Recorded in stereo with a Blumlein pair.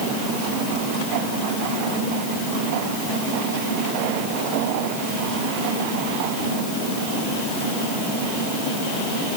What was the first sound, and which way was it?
Only background noise.